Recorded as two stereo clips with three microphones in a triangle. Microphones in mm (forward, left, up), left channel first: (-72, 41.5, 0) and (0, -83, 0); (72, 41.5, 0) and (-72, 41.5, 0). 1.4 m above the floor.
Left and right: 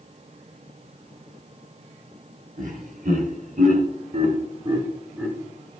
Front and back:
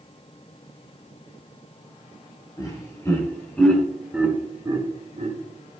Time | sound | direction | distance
2.6 | laughter | 65° right | 3.5 m